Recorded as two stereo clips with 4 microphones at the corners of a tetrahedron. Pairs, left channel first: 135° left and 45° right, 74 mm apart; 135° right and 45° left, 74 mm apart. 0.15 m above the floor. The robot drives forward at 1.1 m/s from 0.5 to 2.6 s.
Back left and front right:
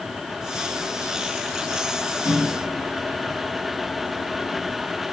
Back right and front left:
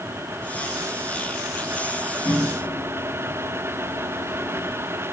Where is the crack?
I don't hear a crack.